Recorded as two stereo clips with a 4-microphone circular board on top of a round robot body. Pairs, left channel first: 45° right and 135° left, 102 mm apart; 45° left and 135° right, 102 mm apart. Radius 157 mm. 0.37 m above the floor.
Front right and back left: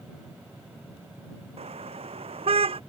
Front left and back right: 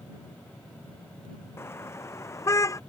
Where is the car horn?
110° left; by 2.8 s 105° left.